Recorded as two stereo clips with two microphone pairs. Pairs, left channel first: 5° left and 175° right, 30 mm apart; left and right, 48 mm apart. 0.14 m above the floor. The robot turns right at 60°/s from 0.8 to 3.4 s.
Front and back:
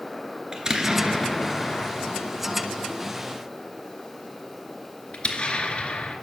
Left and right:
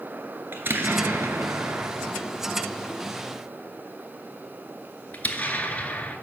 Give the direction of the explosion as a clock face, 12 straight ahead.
4 o'clock.